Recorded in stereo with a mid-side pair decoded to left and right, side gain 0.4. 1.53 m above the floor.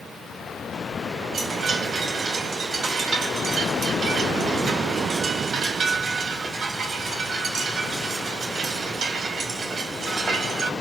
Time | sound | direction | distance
1.3 | a chime | 60° right | 1.7 m